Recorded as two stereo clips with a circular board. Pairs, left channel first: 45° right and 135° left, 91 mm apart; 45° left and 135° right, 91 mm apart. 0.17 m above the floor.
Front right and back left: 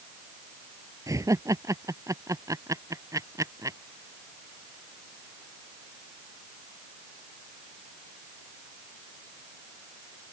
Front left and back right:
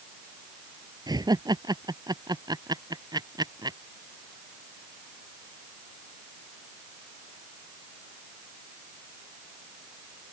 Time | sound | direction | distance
1.1 | laughter | 175° right | ?